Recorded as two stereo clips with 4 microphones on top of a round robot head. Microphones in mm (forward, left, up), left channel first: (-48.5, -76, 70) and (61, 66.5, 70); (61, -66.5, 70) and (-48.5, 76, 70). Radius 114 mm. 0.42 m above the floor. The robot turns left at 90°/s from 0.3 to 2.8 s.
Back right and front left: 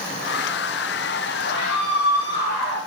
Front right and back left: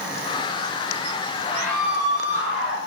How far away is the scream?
About 8.5 m.